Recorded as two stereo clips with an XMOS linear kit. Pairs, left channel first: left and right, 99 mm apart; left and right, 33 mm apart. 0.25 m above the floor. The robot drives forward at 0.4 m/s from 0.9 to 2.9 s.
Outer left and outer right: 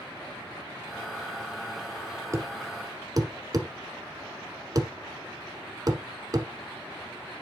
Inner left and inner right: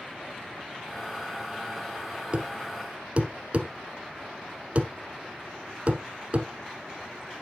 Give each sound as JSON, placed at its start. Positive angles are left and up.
{"t": 2.3, "sound": "a thud", "side_deg": -30, "distance_m": 1.2}